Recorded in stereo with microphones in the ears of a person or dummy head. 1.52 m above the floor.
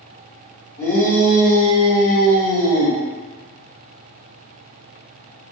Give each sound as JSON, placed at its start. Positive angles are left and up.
{"t": 0.8, "sound": "a shout", "side_deg": 10, "distance_m": 1.1}